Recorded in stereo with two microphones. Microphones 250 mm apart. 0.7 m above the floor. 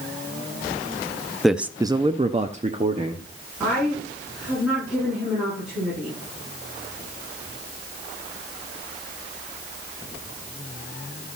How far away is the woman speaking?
About 7.5 m.